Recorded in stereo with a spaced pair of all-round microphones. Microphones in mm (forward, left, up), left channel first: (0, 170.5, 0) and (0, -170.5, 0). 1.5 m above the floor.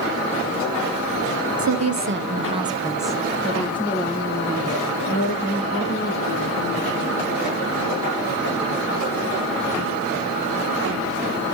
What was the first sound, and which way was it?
A woman speaking, 60° right (ahead or behind).